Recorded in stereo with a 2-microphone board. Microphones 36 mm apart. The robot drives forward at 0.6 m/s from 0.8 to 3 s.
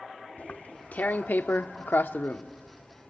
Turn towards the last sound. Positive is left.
turn(degrees=40)  # may be behind; listen again after turning